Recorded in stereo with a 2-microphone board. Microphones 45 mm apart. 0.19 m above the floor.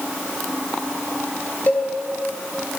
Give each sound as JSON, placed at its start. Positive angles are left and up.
{"t": 1.7, "sound": "a cowbell", "side_deg": 40, "distance_m": 2.0}